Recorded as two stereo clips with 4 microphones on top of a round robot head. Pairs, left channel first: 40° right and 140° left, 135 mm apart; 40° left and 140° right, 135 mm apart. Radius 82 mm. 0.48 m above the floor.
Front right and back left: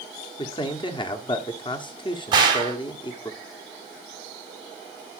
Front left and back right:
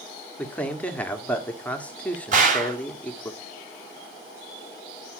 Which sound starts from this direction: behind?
A gunshot, at 2.3 s.